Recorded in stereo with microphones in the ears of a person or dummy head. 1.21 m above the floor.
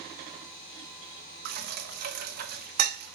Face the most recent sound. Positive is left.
turn(degrees=-50)  # may be behind; listen again after turning